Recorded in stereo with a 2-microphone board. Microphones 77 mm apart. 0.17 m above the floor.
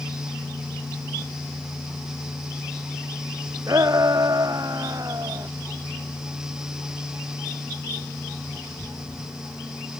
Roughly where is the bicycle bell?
I don't hear a bicycle bell.